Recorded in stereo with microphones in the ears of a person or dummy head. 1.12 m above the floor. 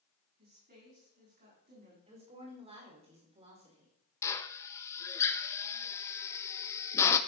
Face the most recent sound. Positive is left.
turn(degrees=10)  # may be behind; listen again after turning